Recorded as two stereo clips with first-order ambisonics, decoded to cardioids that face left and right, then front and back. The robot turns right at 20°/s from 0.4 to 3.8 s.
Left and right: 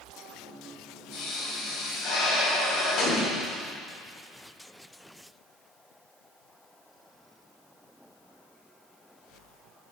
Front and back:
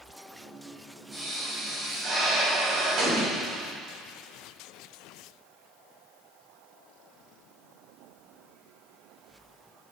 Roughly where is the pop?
Left.